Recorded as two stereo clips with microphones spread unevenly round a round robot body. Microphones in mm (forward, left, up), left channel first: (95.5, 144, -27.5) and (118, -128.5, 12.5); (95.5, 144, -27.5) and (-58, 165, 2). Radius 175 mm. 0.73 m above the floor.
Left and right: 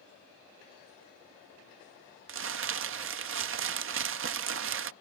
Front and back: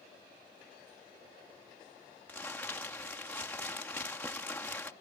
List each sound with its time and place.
2.3 s crumpling: 70° right